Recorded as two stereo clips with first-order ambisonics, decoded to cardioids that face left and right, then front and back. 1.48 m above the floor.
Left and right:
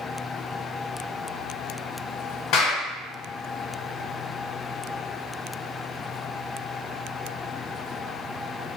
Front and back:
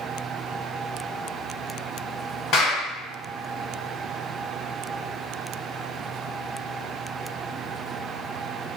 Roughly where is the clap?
Ahead left.